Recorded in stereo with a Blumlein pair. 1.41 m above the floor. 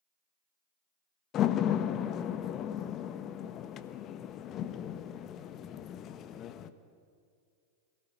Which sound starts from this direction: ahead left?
A door slam, at 1.3 s.